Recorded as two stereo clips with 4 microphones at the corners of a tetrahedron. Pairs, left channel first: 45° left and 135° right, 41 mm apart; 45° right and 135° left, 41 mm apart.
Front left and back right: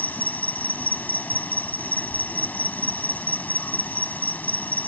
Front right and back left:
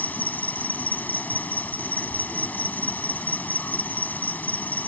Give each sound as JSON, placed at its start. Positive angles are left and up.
{"t": 0.0, "sound": "an insect", "azimuth_deg": 0}